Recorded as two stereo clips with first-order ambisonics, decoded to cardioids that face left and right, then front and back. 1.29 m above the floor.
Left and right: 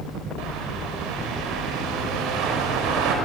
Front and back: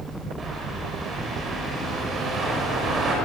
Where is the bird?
115° right, 5.5 m.